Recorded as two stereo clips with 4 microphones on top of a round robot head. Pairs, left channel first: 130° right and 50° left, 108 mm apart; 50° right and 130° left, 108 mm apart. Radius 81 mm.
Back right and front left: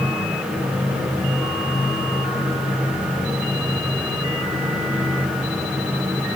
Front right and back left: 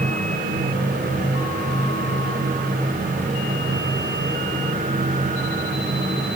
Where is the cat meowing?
No cat meowing in this recording.